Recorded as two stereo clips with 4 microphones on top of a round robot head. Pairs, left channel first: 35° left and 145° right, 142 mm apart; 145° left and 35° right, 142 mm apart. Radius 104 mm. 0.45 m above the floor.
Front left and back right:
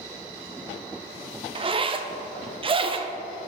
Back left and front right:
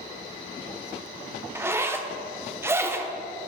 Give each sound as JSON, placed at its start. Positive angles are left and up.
{"t": 1.6, "sound": "a zipper", "azimuth_deg": -105, "distance_m": 0.6}